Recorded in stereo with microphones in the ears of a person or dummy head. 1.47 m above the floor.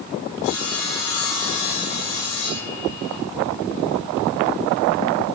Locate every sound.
0.4 s sawing: 75° left (ahead or behind), 9.5 m